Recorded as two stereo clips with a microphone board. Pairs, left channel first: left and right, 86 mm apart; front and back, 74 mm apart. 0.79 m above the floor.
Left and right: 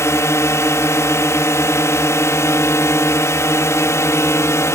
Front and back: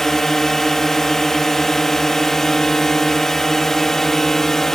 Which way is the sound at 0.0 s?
80° left.